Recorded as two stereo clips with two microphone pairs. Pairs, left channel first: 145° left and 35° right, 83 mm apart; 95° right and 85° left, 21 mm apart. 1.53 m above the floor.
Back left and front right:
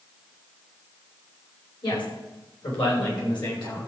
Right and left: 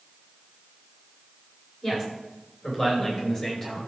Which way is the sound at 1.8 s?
175° left.